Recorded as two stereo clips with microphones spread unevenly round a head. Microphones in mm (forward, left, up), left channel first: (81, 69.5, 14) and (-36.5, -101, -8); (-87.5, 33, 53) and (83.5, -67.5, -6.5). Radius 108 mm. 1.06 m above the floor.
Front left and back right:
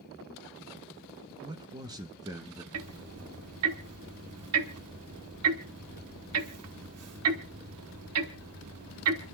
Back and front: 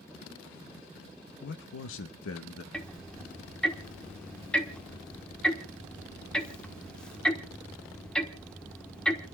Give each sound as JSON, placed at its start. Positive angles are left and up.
{"t": 1.4, "sound": "a man speaking", "azimuth_deg": 180, "distance_m": 0.6}
{"t": 2.7, "sound": "ticking", "azimuth_deg": -130, "distance_m": 1.2}